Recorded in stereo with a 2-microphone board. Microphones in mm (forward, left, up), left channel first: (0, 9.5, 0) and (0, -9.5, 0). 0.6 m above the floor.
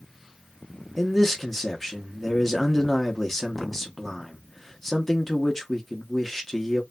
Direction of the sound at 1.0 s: 20° left (ahead or behind).